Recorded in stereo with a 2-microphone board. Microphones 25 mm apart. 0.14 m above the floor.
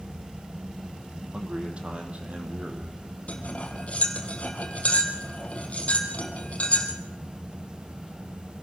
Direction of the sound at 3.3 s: 60° left (ahead or behind).